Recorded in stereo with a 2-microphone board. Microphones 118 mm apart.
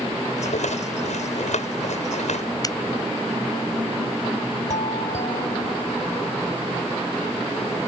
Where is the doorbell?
80° left.